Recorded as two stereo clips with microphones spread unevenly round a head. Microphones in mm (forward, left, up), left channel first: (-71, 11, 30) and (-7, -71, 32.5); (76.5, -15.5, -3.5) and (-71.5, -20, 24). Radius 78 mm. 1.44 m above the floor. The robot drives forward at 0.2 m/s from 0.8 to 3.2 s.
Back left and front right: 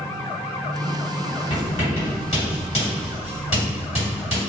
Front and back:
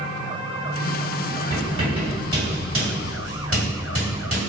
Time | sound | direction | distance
1.5 | writing | 135° left | 1.8 m